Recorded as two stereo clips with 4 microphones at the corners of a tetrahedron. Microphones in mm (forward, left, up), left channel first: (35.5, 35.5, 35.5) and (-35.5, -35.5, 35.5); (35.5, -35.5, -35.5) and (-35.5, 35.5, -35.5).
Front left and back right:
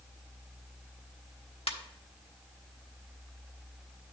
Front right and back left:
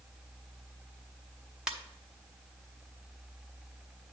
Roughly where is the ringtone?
Ahead left.